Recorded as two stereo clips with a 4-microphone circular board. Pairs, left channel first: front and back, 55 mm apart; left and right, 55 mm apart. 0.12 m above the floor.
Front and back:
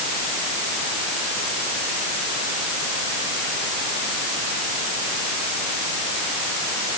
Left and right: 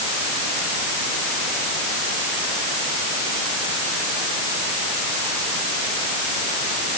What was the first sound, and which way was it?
Only background noise.